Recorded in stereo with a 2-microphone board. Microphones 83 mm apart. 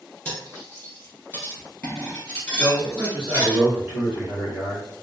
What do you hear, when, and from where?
0.2 s cutlery clinking: 20° left (ahead or behind), 1.7 m
2.6 s a man speaking: 20° right (ahead or behind), 1.6 m